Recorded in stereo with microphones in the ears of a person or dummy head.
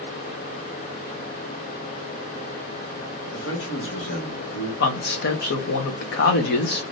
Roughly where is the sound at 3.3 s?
Left.